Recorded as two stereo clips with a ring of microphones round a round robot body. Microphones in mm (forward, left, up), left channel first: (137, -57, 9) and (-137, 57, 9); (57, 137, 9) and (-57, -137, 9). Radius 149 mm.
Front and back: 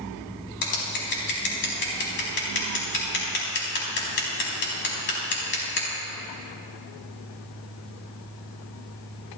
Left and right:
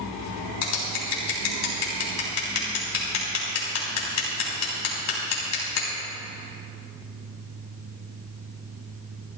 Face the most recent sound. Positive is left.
turn(degrees=30)